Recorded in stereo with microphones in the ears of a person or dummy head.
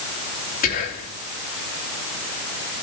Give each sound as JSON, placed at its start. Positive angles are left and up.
{"t": 0.6, "sound": "whispering", "side_deg": 45, "distance_m": 2.5}